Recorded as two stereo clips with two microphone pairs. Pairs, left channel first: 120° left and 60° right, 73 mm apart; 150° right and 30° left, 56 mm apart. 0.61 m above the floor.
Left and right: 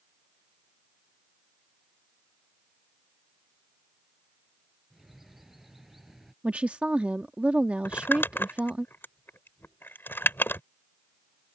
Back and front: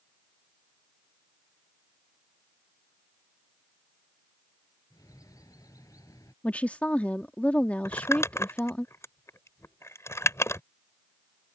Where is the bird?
145° right.